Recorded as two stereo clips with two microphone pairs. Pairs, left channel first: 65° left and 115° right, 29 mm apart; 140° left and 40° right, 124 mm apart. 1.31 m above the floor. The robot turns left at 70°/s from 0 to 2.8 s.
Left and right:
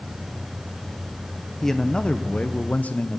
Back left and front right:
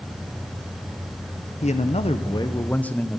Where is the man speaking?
145° left, 0.6 m; by 3.2 s 60° left, 0.6 m.